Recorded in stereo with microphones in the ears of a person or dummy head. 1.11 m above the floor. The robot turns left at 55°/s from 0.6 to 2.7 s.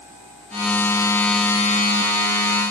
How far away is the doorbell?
I don't hear a doorbell.